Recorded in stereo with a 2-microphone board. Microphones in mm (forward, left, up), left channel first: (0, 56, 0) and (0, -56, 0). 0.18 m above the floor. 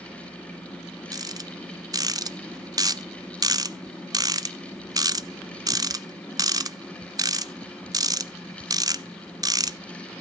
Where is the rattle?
35° right (ahead or behind), 0.5 m.